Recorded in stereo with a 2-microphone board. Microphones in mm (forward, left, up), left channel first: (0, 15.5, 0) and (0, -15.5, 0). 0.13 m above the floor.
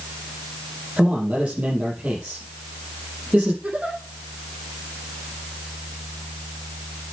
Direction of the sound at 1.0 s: 40° right (ahead or behind).